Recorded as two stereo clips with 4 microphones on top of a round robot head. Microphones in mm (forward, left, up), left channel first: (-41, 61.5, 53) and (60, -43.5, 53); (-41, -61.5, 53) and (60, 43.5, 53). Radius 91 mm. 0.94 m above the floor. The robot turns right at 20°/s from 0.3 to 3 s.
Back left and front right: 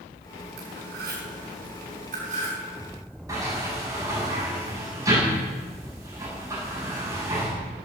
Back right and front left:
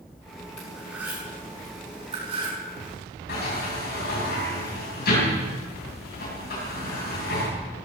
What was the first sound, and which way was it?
Cutlery clinking, 40° right.